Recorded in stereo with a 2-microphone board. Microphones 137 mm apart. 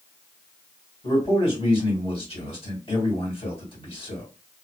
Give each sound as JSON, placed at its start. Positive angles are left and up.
{"t": 1.0, "sound": "a man speaking", "side_deg": 45, "distance_m": 2.0}